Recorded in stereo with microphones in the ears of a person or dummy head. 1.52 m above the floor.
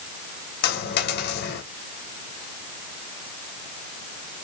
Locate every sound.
0.6 s a dropped coin: 65° left (ahead or behind), 2.5 m